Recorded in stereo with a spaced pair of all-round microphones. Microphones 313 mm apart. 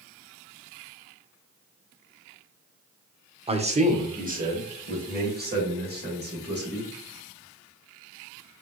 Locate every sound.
3.5 s a man speaking: 20° right (ahead or behind), 0.7 m; by 6.9 s 35° right (ahead or behind), 2.5 m